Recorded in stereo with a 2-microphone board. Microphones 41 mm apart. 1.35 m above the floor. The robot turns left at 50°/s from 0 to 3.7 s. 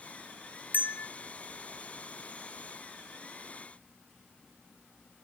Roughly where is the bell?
Left.